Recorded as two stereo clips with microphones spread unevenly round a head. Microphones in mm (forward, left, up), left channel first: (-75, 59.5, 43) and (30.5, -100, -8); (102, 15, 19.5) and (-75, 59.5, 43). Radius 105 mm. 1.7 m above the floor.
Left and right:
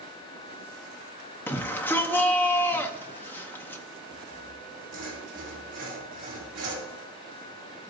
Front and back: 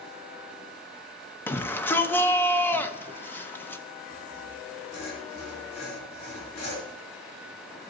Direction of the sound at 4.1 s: 30° right.